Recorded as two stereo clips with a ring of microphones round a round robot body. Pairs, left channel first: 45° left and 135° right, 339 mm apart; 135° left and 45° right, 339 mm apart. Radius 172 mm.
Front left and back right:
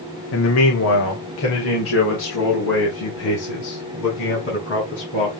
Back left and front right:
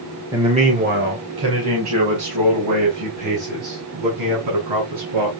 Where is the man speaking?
35° left, 1.4 m; by 5.3 s 15° right, 7 m.